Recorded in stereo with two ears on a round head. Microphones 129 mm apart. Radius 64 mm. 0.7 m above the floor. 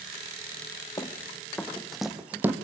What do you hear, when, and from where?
1.0 s running footsteps: 25° left (ahead or behind), 2.5 m; by 2.5 s 15° right (ahead or behind), 1.7 m